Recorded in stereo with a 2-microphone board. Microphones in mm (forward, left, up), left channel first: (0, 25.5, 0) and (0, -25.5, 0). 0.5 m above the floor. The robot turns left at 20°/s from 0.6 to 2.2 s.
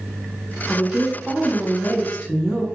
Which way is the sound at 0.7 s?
10° left (ahead or behind).